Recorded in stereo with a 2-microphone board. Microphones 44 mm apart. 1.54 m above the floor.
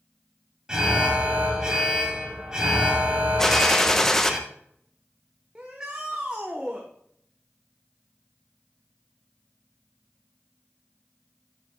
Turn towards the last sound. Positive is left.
turn(degrees=-20)  # may be behind; listen again after turning